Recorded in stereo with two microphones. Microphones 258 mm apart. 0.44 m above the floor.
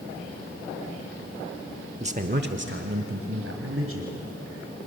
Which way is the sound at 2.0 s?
25° right (ahead or behind).